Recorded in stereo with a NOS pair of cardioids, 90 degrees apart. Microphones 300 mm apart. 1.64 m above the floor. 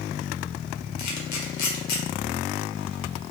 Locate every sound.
1.0 s a camera shutter: 65° left, 1.2 m